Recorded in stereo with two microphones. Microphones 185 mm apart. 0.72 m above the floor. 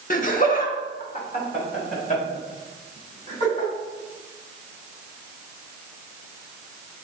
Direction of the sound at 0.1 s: 45° left (ahead or behind).